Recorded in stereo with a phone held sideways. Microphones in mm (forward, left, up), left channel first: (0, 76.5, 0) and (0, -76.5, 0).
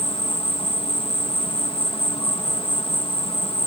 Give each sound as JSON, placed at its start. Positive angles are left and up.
{"t": 0.0, "sound": "an insect", "side_deg": 35}